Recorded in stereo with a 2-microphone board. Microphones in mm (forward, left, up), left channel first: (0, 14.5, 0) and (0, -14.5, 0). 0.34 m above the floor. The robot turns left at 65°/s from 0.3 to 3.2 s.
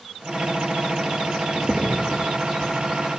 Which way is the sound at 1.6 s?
10° left (ahead or behind).